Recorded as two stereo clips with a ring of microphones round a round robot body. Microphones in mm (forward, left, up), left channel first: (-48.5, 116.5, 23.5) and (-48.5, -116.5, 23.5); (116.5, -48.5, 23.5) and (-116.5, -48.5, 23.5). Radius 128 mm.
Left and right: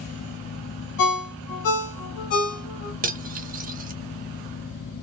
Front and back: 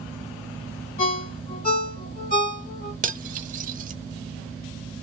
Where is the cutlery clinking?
135° right, 0.6 m.